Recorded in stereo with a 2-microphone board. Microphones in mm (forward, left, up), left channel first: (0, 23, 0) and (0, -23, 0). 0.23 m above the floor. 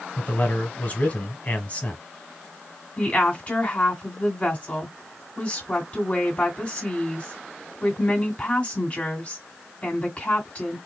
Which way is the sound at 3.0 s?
30° left (ahead or behind).